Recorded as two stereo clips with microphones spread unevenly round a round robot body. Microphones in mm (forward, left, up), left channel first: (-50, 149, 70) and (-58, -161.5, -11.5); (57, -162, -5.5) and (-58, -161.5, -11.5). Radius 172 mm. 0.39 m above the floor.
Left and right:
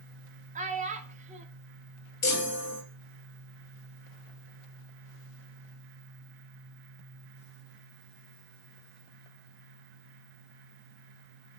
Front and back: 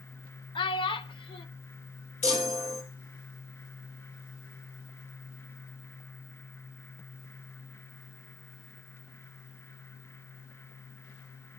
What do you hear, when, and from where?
0.6 s a child speaking: 40° right, 0.6 m
2.2 s a chime: 25° left, 1.5 m